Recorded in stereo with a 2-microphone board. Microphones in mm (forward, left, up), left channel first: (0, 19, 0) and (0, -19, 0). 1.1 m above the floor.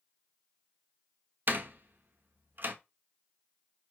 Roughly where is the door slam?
Right.